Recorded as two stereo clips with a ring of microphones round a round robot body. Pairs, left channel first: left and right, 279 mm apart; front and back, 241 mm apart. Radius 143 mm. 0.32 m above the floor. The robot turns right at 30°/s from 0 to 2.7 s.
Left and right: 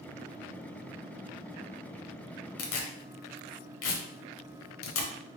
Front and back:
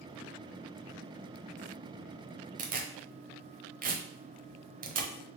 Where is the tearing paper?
125° left, 0.9 m.